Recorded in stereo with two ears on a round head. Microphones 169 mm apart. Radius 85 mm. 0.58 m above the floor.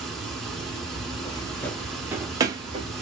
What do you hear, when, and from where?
0.0 s running water: 5° left (ahead or behind), 1.1 m
1.1 s footsteps: 30° left (ahead or behind), 0.6 m; by 2.9 s 25° right (ahead or behind), 0.9 m